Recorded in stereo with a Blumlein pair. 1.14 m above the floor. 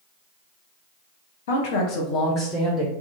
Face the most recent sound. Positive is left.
turn(degrees=-5)